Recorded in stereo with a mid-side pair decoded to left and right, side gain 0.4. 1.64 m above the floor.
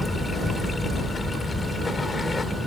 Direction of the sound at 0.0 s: 35° left.